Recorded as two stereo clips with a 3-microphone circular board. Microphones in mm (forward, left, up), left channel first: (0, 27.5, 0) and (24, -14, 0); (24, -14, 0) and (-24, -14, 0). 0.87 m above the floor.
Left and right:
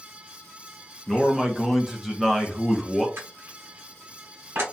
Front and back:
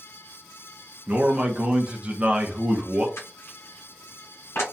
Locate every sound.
1.1 s a man speaking: 150° right, 0.6 m
3.2 s crushing: 25° right, 1.2 m